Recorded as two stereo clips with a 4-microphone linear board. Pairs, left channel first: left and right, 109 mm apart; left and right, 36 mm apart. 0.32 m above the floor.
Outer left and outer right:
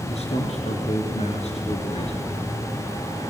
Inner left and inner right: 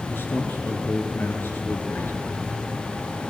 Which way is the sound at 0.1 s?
75° left (ahead or behind).